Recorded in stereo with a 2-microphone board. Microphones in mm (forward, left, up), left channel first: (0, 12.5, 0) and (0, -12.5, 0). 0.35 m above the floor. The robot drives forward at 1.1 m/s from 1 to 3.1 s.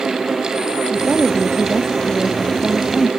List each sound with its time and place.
0.9 s a woman speaking: 20° left (ahead or behind); by 3.1 s 15° left (ahead or behind)